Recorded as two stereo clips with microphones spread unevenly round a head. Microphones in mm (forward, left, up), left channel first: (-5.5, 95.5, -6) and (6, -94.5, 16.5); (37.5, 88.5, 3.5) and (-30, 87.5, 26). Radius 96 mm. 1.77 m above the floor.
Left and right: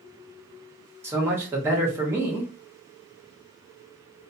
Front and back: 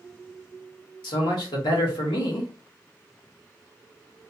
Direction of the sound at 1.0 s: 10° right.